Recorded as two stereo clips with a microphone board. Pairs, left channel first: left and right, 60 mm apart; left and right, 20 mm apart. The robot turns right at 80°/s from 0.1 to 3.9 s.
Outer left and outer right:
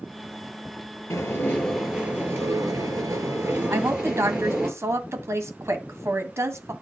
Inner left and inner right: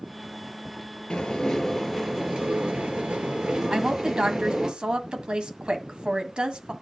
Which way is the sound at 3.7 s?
45° right (ahead or behind).